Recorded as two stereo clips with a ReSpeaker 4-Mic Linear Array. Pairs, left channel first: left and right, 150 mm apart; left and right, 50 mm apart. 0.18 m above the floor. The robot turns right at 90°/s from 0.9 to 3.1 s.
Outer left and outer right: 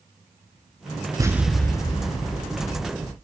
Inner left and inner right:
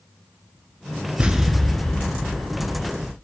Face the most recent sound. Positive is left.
turn(degrees=145)